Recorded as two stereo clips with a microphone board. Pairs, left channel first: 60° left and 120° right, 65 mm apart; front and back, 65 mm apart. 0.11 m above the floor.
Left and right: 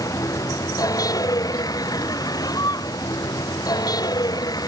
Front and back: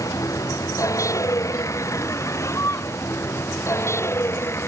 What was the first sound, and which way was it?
A vehicle, 30° left.